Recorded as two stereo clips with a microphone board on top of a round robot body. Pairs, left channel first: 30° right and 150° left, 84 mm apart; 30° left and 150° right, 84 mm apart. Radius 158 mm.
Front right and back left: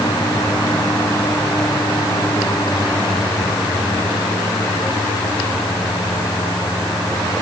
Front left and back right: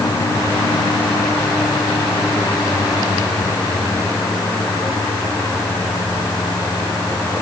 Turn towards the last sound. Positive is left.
No sound to turn to.